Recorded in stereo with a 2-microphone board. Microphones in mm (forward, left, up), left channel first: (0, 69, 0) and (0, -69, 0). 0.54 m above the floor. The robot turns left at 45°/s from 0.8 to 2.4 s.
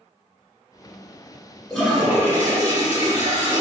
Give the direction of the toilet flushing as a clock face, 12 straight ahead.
12 o'clock.